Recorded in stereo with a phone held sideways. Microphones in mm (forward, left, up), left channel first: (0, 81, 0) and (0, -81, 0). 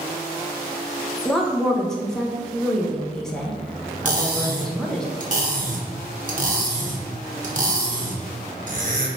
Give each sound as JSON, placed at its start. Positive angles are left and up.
{"t": 1.2, "sound": "a woman speaking", "side_deg": 5, "distance_m": 0.7}
{"t": 4.0, "sound": "cutlery clinking", "side_deg": -55, "distance_m": 0.8}